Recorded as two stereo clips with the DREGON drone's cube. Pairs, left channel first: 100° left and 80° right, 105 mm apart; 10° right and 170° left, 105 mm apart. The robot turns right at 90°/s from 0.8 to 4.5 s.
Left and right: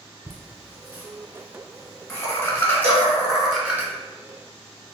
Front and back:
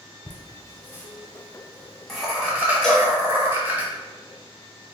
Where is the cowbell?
95° right, 1.3 m; by 3.1 s 70° right, 1.3 m.